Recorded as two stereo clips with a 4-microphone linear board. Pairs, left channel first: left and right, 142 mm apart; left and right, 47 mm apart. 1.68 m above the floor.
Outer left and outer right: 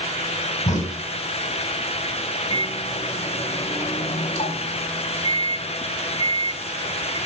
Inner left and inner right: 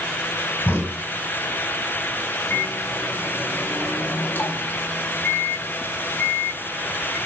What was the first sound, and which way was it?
A crack, 55° left (ahead or behind).